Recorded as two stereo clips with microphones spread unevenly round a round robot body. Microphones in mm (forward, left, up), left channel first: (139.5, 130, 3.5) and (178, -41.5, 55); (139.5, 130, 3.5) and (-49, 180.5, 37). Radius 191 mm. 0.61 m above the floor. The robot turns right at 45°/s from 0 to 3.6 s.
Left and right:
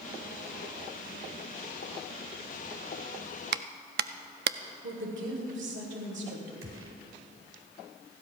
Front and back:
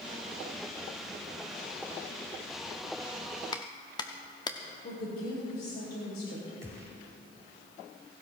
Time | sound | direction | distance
3.5 | a clap | 65° right | 0.6 m
4.8 | a woman speaking | 70° right | 3.5 m
6.6 | a gunshot | 115° right | 0.9 m